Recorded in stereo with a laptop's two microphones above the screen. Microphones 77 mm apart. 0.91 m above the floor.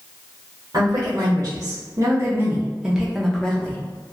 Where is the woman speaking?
60° right (ahead or behind), 1.2 m; by 3.8 s 15° left (ahead or behind), 0.9 m.